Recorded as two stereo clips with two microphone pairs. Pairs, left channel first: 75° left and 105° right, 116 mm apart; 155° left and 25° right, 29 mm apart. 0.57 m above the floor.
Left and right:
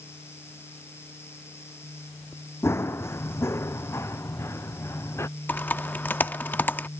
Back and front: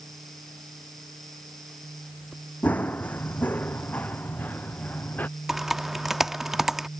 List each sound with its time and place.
2.6 s running footsteps: 140° left
5.5 s typing on a keyboard: 30° left